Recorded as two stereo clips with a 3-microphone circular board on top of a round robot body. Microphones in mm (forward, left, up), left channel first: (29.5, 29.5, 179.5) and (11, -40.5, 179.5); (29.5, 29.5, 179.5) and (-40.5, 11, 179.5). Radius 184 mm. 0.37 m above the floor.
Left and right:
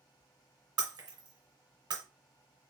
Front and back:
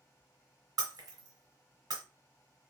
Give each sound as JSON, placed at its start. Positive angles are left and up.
{"t": 0.8, "sound": "breaking glass", "azimuth_deg": -130, "distance_m": 1.3}